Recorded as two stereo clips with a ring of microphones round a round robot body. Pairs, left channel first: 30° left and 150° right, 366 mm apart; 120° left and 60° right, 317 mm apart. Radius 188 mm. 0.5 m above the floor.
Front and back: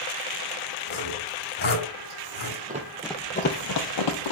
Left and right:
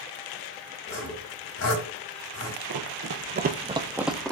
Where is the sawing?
95° left, 3 m.